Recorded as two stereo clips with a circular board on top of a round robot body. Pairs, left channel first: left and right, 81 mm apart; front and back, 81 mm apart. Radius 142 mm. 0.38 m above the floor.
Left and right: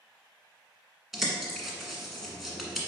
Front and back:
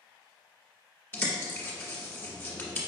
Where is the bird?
10° right, 1.5 m.